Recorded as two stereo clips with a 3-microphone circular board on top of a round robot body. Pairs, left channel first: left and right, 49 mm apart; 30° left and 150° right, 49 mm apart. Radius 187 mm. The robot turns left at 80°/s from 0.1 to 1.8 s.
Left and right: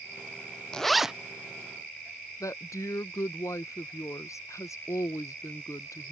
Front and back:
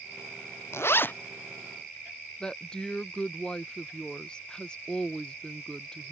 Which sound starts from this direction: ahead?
A zipper, at 0.7 s.